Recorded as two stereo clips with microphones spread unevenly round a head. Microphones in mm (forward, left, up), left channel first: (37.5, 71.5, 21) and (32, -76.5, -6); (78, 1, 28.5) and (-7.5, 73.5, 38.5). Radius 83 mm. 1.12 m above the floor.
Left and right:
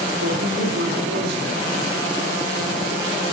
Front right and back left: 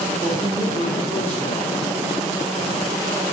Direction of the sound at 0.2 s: 115° right.